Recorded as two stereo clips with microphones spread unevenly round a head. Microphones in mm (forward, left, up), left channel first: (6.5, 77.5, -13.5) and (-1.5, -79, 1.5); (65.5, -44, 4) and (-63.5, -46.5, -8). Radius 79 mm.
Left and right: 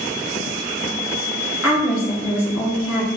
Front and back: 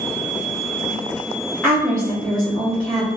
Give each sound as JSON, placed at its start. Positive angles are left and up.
{"t": 1.6, "sound": "a woman speaking", "azimuth_deg": 85, "distance_m": 1.2}